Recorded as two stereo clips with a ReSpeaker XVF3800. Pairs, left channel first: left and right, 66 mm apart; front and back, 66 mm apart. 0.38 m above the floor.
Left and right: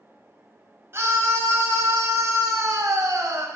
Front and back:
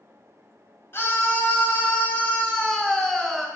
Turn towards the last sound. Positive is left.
turn(degrees=-85)